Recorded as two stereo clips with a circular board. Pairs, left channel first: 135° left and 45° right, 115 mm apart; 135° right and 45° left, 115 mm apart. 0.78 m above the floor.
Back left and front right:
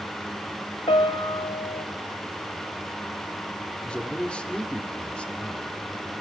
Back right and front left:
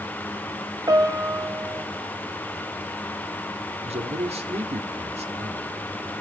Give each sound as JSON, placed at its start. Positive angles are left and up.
{"t": 0.9, "sound": "a piano", "azimuth_deg": 100, "distance_m": 1.3}
{"t": 3.8, "sound": "a man speaking", "azimuth_deg": 55, "distance_m": 2.0}